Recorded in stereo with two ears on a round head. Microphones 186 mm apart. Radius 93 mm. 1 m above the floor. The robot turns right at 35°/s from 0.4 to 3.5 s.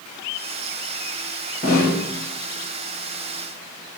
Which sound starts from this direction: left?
A snare drum, at 1.6 s.